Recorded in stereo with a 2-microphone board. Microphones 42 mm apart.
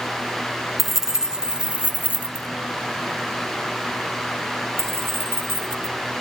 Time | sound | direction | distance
0.8 | keys jangling | 5° right (ahead or behind) | 1.2 m